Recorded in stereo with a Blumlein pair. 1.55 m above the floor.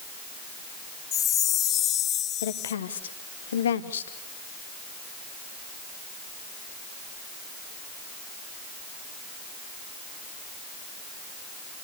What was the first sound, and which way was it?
A chime, 30° left.